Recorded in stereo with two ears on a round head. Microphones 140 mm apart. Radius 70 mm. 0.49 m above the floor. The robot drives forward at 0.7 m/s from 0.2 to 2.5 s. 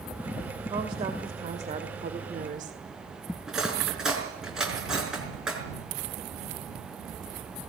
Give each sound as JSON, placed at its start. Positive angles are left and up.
{"t": 0.7, "sound": "a woman speaking", "side_deg": -30, "distance_m": 2.0}
{"t": 3.5, "sound": "cutlery clinking", "side_deg": -5, "distance_m": 4.0}